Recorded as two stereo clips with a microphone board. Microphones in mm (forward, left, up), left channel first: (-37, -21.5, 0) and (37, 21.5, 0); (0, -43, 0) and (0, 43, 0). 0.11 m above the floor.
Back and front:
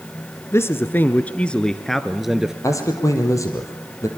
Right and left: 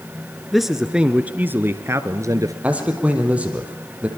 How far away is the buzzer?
No buzzer in this recording.